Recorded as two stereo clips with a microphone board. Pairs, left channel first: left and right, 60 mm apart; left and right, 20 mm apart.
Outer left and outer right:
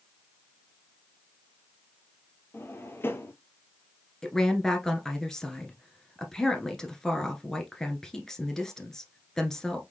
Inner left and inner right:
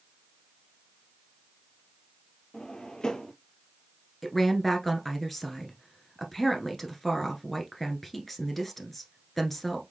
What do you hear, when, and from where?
2.5 s a drawer: 40° left (ahead or behind), 0.8 m
4.2 s a woman speaking: 10° left (ahead or behind), 1.3 m